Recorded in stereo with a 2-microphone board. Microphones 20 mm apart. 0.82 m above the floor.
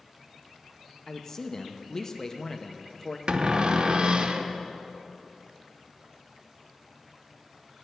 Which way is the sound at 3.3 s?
50° right (ahead or behind).